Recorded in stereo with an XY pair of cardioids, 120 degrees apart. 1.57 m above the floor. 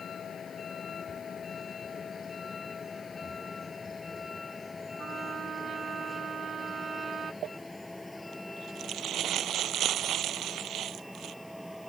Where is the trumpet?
45° right.